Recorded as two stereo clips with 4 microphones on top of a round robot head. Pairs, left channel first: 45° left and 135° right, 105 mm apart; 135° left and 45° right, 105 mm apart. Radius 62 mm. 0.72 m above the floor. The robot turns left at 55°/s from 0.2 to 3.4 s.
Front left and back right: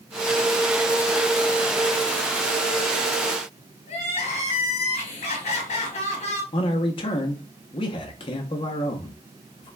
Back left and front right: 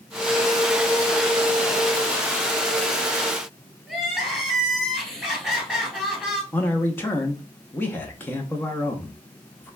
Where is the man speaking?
65° left, 0.8 m.